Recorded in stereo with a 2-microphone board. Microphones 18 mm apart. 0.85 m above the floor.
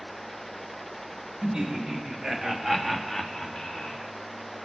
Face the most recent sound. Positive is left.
turn(degrees=45)  # may be behind; listen again after turning